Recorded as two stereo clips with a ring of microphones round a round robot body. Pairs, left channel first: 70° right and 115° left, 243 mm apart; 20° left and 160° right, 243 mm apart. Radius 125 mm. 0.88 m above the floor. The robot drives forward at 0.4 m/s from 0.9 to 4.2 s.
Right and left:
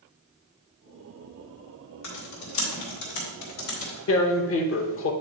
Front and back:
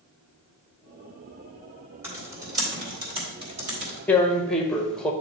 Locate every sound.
2.0 s typing on a keyboard: 75° right, 2 m; by 4.0 s 95° right, 2 m
4.1 s tearing paper: 60° right, 0.8 m; by 5.1 s 65° right, 0.8 m